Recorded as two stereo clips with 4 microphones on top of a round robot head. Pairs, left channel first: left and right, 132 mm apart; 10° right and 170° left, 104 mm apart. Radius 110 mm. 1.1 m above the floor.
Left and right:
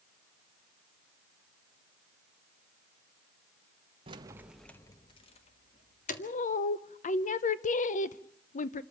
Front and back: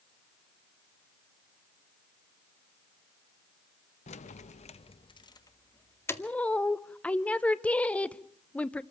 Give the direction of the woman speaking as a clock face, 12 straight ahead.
10 o'clock.